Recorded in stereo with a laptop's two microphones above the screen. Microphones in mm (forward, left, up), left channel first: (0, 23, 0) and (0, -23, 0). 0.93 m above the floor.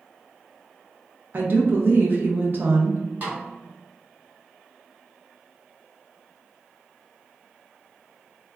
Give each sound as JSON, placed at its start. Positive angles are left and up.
{"t": 1.3, "sound": "a woman speaking", "side_deg": -45, "distance_m": 0.6}
{"t": 3.2, "sound": "a snare drum", "side_deg": -40, "distance_m": 1.4}